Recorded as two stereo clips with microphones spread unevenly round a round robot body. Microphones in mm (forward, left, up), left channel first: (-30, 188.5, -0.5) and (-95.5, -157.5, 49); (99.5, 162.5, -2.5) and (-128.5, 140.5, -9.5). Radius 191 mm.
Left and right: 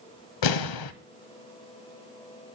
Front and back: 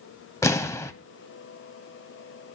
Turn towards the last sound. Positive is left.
turn(degrees=85)